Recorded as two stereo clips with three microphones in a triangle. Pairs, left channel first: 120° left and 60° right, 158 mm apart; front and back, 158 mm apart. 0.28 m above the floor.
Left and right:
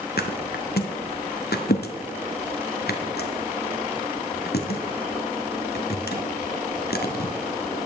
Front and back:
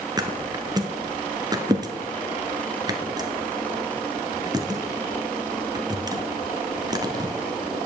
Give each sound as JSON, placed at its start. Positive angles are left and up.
{"t": 0.2, "sound": "a thud", "azimuth_deg": 115, "distance_m": 1.1}